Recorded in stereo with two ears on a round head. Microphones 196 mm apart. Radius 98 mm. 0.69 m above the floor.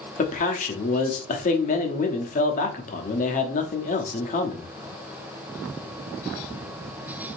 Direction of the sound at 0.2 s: 35° left (ahead or behind).